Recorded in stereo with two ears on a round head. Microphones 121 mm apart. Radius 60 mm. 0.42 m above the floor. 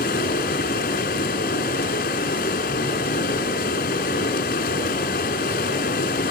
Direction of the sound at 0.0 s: 75° left (ahead or behind).